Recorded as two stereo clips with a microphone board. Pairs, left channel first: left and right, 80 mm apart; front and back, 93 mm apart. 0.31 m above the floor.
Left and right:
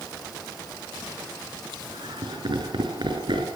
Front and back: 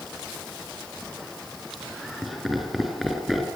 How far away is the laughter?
About 4.5 m.